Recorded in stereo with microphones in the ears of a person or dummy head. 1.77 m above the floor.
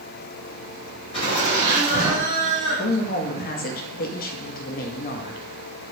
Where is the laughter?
35° left (ahead or behind), 1.3 m; by 3.8 s 60° left (ahead or behind), 1.1 m.